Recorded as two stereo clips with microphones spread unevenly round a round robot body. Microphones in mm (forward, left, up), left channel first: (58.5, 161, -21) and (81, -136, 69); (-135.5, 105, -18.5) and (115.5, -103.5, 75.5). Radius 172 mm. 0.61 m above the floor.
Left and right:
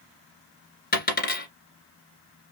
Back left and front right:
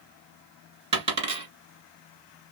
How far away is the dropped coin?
About 1.9 m.